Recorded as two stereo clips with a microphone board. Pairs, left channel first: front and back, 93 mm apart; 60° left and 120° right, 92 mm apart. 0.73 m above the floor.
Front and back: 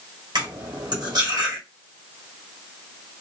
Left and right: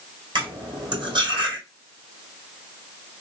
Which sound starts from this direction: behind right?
Cutlery clinking, at 0.3 s.